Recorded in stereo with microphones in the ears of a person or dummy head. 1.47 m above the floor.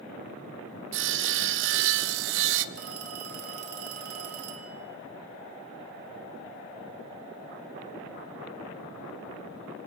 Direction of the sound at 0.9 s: 70° right (ahead or behind).